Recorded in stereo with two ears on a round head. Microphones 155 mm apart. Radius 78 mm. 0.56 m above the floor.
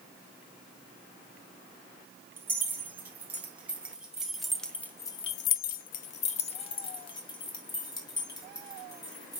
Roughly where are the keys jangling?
Centre.